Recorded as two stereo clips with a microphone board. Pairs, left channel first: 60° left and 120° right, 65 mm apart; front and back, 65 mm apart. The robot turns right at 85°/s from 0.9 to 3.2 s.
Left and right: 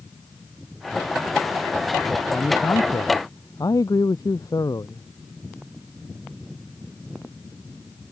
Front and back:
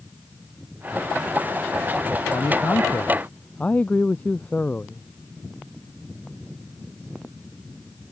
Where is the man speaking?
5° right; by 5.0 s 70° left.